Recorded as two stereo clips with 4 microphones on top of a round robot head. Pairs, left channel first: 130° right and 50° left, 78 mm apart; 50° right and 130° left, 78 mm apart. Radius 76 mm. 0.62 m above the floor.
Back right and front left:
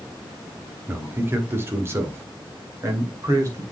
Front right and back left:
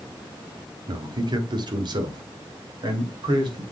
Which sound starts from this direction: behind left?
A man speaking, at 0.9 s.